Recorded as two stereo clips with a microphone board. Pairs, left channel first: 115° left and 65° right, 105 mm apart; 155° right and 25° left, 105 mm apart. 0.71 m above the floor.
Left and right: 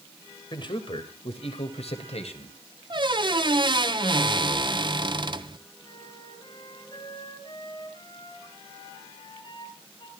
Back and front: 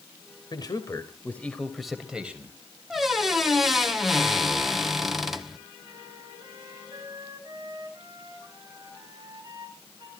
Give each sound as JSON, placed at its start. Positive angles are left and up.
{"t": 0.5, "sound": "a man speaking", "azimuth_deg": 155, "distance_m": 2.5}
{"t": 2.9, "sound": "a squeak", "azimuth_deg": -65, "distance_m": 1.0}
{"t": 5.8, "sound": "a flute", "azimuth_deg": 75, "distance_m": 5.0}